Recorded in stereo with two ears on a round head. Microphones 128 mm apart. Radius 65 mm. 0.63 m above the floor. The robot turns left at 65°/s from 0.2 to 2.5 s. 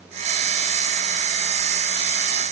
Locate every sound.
Only background noise.